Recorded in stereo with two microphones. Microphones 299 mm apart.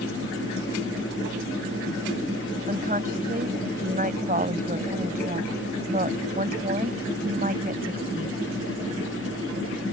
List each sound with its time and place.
2.7 s a woman speaking: 30° right (ahead or behind)